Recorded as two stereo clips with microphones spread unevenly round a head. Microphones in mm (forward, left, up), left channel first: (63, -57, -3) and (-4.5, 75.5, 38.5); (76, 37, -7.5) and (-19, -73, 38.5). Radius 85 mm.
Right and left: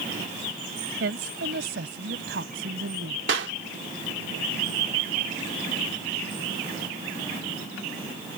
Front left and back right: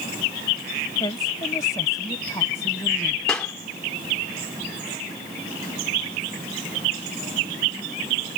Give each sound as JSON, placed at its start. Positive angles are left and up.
{"t": 1.0, "sound": "a woman speaking", "azimuth_deg": 120}
{"t": 3.3, "sound": "a clap", "azimuth_deg": 135}